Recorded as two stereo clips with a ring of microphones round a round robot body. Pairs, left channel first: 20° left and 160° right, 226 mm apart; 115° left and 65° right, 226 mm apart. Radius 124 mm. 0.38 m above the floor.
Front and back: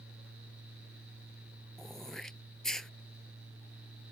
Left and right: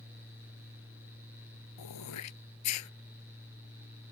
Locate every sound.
1.8 s throat clearing: 110° left